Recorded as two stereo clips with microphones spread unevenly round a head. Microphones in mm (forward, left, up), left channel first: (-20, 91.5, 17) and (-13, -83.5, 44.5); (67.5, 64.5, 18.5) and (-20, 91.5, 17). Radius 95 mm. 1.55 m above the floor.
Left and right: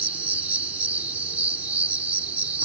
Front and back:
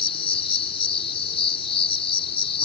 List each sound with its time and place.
0.0 s an insect: 10° right